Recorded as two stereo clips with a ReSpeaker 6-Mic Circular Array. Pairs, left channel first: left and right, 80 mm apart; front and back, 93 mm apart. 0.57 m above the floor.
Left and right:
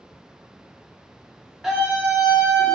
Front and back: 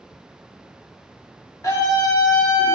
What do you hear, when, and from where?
1.6 s a scream: 10° right, 0.9 m; by 2.8 s 55° right, 1.1 m